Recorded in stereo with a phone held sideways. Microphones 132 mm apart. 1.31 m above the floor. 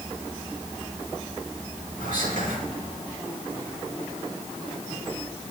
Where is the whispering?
85° right, 6.5 m.